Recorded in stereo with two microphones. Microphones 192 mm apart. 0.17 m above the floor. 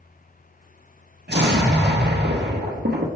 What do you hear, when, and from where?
1.3 s an explosion: 65° right (ahead or behind), 0.8 m